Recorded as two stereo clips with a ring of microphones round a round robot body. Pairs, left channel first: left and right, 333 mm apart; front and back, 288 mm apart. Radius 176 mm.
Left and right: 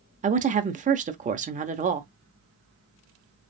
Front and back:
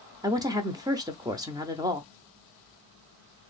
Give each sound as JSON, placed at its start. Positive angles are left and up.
{"t": 0.2, "sound": "a woman speaking", "azimuth_deg": -120, "distance_m": 0.9}